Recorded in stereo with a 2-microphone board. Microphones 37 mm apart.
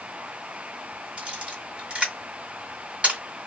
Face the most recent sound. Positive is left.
turn(degrees=-35)  # may be behind; listen again after turning